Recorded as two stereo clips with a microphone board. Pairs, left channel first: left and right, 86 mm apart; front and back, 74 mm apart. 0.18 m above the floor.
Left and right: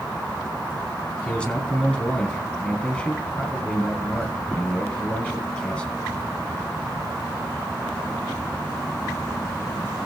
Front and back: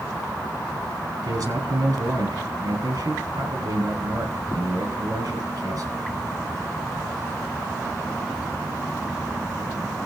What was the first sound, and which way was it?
A man speaking, 170° left.